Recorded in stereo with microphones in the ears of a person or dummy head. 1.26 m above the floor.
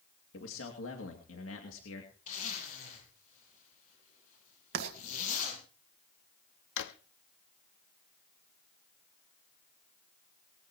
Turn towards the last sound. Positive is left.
turn(degrees=65)  # may be behind; listen again after turning